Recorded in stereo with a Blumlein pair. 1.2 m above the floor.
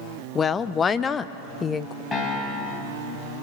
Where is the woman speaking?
20° left, 0.5 m.